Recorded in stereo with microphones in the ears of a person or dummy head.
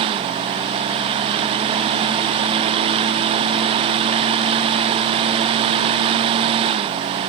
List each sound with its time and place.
Only background noise.